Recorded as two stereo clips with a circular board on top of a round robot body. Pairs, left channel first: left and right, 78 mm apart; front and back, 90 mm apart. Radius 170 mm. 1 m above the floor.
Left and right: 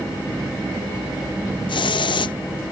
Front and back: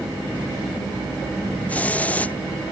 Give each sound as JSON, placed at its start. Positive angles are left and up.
{"t": 1.7, "sound": "a hiss", "azimuth_deg": 75}